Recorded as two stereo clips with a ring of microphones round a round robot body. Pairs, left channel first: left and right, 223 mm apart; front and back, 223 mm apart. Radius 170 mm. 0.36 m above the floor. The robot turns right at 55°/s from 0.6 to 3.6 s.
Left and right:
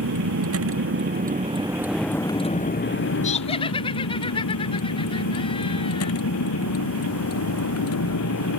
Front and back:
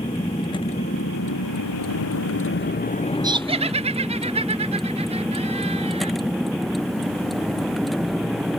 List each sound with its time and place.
0.0 s a vehicle: 75° right; by 8.6 s 90° left
3.2 s laughter: 120° left; by 6.1 s 140° left